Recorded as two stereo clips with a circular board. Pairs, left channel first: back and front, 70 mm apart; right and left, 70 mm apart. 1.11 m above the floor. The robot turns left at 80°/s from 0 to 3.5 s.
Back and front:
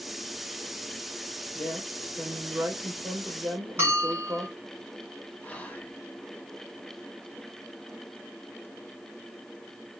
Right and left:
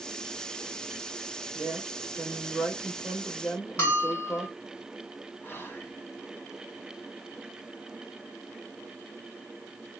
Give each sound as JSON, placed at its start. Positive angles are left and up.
{"t": 1.5, "sound": "a woman speaking", "azimuth_deg": 125, "distance_m": 1.6}
{"t": 3.8, "sound": "a bell", "azimuth_deg": -50, "distance_m": 1.7}
{"t": 5.4, "sound": "whispering", "azimuth_deg": -120, "distance_m": 0.8}